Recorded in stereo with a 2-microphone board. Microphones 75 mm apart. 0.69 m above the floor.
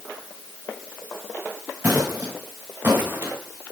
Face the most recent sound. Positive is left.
turn(degrees=-35)  # may be behind; listen again after turning